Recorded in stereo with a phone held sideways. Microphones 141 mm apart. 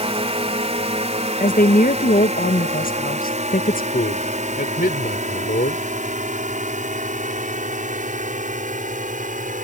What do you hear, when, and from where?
0.0 s a drone: 45° right (ahead or behind); by 9.6 s 65° right (ahead or behind)
1.4 s a woman speaking: 75° left (ahead or behind)
3.9 s a man speaking: 90° left